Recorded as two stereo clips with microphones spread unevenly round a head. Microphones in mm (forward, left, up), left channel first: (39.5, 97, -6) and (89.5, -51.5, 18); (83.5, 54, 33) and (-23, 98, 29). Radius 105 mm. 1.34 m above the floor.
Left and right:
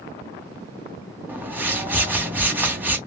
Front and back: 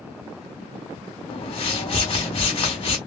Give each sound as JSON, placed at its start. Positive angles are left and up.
{"t": 1.3, "sound": "a whoosh", "azimuth_deg": 5, "distance_m": 2.5}